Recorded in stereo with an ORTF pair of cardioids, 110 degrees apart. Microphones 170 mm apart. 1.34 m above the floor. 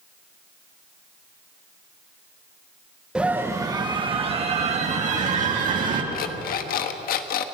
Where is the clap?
No clap in this recording.